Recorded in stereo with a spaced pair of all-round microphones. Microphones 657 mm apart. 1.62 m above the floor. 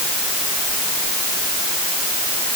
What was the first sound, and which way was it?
Only background noise.